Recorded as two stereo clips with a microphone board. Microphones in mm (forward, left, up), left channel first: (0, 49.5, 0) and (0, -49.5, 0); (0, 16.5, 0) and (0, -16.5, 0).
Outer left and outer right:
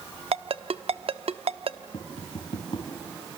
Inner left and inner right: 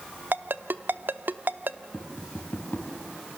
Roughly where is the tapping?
Left.